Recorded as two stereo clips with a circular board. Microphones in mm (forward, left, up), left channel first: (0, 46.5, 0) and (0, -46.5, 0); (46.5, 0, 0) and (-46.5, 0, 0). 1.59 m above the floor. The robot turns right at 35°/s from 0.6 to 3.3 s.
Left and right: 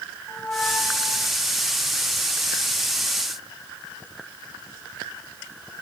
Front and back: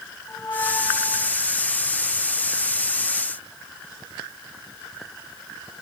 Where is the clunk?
I don't hear a clunk.